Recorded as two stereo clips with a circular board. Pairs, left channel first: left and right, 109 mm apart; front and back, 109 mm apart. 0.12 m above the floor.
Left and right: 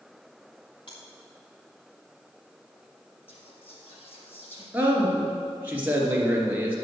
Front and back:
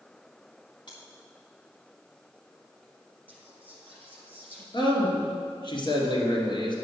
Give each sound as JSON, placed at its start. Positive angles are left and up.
{"t": 0.9, "sound": "chewing", "azimuth_deg": 45, "distance_m": 2.5}
{"t": 3.3, "sound": "whispering", "azimuth_deg": 75, "distance_m": 3.0}
{"t": 4.7, "sound": "a man speaking", "azimuth_deg": -20, "distance_m": 2.5}